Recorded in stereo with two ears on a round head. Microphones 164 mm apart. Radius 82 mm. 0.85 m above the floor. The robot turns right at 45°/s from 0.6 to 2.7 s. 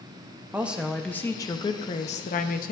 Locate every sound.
0.5 s a woman speaking: 10° right, 0.6 m; by 2.7 s 85° left, 0.6 m